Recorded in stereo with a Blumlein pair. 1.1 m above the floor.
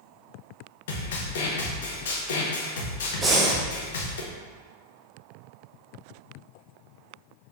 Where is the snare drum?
60° left, 0.7 m.